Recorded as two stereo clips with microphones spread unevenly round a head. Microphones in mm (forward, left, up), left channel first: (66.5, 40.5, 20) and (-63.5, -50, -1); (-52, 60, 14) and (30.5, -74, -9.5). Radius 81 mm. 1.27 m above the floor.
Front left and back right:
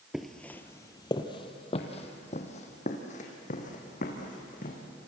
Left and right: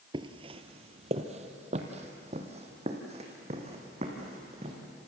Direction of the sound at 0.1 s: 40° right.